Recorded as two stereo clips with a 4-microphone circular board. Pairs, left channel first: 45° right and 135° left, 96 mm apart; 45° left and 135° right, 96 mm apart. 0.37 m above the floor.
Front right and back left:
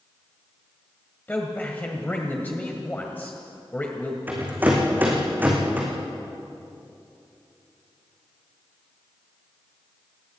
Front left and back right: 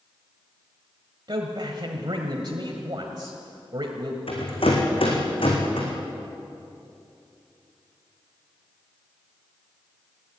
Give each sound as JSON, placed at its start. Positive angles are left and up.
{"t": 1.3, "sound": "a man speaking", "azimuth_deg": -115, "distance_m": 1.7}
{"t": 4.3, "sound": "a rattle", "azimuth_deg": 65, "distance_m": 4.0}